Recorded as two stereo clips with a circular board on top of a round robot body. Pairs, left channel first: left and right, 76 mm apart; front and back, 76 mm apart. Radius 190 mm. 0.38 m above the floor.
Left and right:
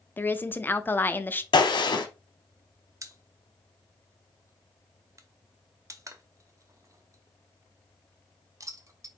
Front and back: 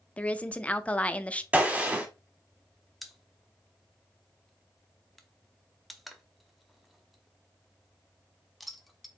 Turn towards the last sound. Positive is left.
turn(degrees=-90)